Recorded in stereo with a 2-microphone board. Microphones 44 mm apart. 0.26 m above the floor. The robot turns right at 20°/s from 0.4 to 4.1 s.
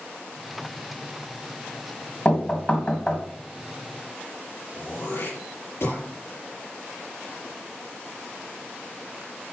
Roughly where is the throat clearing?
Left.